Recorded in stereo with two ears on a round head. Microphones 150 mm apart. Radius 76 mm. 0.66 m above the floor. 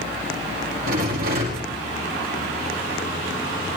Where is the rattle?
60° right (ahead or behind), 6 m.